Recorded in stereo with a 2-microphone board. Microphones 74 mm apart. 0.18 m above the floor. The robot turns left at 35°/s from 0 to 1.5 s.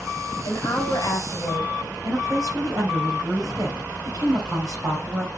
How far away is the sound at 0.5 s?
About 3 m.